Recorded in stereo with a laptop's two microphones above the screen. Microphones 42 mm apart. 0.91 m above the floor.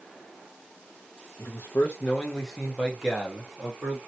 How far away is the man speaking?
About 0.7 m.